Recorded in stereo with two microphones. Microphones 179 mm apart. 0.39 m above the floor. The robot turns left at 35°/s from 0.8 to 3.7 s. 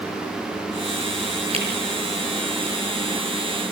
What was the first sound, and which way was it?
A camera shutter, 35° right (ahead or behind).